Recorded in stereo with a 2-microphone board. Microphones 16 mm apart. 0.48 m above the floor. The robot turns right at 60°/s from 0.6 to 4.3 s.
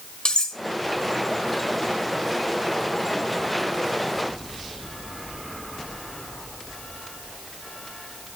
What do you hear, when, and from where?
0.2 s cutlery clinking: 60° left (ahead or behind), 1.3 m